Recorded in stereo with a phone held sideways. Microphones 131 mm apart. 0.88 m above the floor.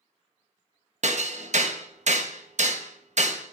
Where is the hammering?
60° right (ahead or behind), 0.7 m.